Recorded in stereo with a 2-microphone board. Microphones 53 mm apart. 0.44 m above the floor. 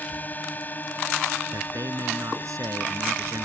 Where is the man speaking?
80° right.